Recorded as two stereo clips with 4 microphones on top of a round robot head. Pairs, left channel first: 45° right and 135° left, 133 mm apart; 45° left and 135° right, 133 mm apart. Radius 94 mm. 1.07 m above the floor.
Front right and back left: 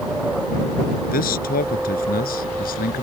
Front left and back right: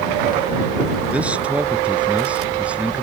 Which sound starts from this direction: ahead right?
A man speaking, at 1.1 s.